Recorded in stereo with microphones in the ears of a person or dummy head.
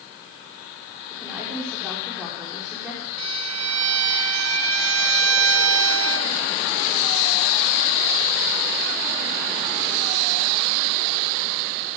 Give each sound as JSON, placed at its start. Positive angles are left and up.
{"t": 1.1, "sound": "a woman speaking", "side_deg": -5, "distance_m": 6.0}
{"t": 3.2, "sound": "a violin", "side_deg": -85, "distance_m": 1.4}